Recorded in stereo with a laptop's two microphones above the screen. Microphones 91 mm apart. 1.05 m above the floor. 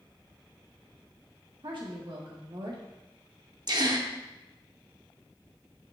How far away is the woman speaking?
About 1.4 m.